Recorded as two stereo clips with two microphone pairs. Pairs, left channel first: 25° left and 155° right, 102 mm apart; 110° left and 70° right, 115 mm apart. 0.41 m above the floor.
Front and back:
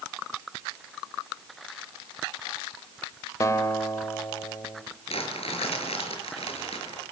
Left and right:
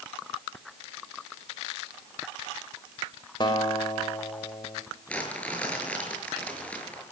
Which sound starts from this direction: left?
A guitar, at 3.4 s.